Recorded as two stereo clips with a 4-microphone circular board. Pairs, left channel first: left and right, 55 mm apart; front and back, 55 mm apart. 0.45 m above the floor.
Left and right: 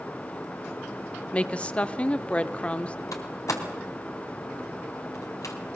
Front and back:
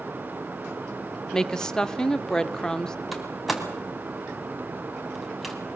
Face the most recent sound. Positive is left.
turn(degrees=95)